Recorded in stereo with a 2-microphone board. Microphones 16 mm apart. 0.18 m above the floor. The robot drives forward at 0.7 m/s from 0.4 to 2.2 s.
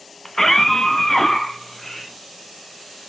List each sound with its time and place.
0.2 s a scream: 25° left (ahead or behind), 1.2 m; by 2.1 s 20° left (ahead or behind), 1.5 m